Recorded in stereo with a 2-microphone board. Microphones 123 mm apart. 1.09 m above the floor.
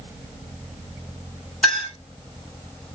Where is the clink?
5° left (ahead or behind), 1.5 m.